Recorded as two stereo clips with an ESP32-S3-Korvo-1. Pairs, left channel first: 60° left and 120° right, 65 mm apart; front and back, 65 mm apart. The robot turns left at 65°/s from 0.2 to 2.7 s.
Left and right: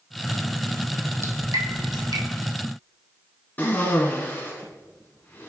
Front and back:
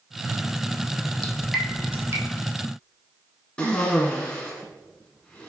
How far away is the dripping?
About 1.0 m.